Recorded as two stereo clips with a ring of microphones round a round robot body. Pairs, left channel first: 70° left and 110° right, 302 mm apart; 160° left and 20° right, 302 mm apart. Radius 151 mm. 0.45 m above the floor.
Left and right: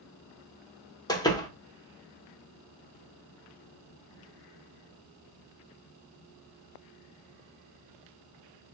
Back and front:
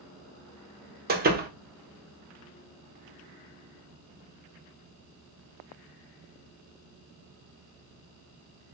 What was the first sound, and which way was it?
A door slam, straight ahead.